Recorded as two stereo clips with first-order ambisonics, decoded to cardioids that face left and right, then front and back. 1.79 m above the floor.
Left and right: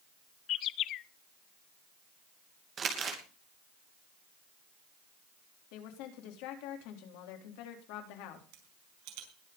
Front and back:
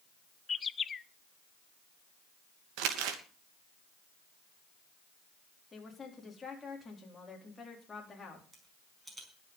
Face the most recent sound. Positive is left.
turn(degrees=-100)